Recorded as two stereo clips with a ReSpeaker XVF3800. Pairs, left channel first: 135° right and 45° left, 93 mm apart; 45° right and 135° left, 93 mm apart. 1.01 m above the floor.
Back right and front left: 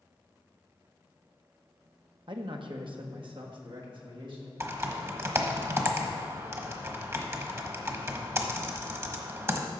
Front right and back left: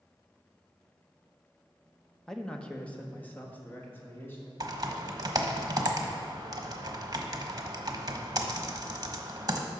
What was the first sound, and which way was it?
A man speaking, 40° left.